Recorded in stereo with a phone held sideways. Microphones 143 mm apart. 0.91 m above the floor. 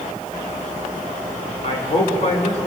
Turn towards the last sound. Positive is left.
turn(degrees=55)  # may be behind; listen again after turning